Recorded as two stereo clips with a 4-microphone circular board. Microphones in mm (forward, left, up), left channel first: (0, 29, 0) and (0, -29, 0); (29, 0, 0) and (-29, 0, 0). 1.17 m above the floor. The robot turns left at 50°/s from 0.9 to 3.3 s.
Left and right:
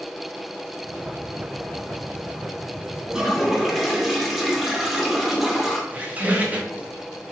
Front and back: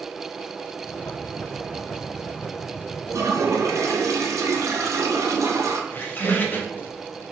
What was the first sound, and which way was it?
A toilet flushing, 165° right.